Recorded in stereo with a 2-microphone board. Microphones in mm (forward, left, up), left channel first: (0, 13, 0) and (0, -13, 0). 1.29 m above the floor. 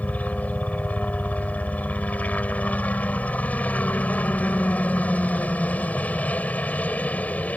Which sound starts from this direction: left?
A helicopter, at 0.0 s.